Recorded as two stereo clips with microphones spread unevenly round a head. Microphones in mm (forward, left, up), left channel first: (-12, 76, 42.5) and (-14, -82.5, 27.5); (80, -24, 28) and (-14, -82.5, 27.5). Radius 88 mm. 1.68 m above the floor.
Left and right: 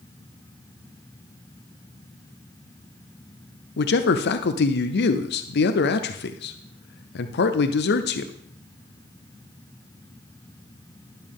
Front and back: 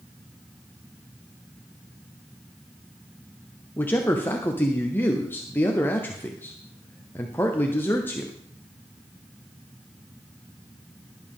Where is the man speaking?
110° left, 0.6 m.